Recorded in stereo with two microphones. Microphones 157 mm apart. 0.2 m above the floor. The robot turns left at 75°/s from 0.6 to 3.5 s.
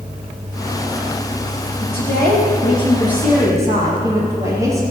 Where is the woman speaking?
110° left, 5 m; by 4.8 s 20° right, 5 m.